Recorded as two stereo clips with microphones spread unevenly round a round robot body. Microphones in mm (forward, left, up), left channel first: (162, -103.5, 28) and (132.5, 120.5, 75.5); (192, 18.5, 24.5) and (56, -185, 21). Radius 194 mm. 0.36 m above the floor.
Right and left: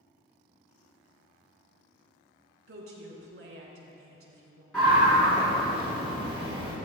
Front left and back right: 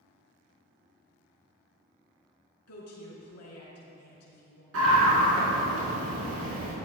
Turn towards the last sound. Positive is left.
turn(degrees=-170)